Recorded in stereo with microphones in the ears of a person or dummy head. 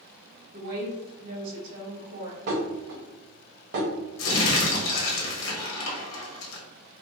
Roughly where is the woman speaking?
Right.